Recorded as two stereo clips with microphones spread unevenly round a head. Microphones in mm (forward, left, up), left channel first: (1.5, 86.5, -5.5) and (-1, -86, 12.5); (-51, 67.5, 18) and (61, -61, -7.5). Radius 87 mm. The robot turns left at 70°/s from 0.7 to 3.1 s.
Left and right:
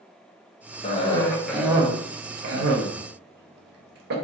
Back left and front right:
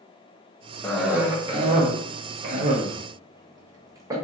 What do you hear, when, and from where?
0.8 s a cough: 45° left, 0.7 m; by 4.2 s 110° right, 0.7 m